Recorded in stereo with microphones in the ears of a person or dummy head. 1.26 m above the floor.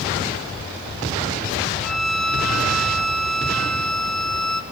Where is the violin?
Centre (ahead or behind), 1.5 m.